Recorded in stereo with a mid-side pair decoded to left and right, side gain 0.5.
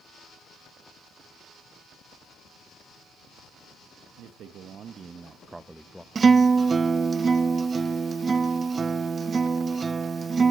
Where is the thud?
I don't hear a thud.